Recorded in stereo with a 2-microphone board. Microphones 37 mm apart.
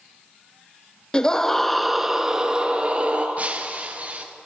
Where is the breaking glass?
40° right (ahead or behind), 1.8 m.